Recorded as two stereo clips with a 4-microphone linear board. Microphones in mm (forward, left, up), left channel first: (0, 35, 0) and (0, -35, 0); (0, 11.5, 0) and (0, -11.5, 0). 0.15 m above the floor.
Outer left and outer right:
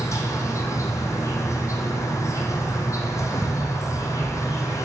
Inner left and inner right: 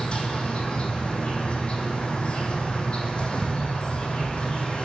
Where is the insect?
45° left (ahead or behind), 1.1 m.